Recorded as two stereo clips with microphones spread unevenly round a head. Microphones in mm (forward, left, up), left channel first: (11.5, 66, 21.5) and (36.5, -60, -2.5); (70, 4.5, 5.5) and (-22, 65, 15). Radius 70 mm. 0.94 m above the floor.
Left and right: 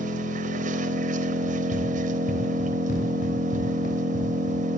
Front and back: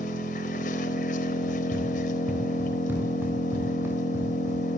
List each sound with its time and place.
0.0 s an engine running: 55° right, 4 m
1.4 s running footsteps: 70° left, 8 m; by 4.6 s 80° left, 9 m